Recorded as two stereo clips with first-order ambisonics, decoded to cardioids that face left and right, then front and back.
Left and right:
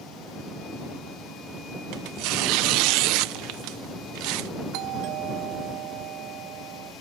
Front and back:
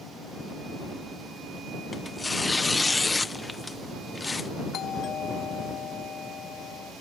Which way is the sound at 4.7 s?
60° right.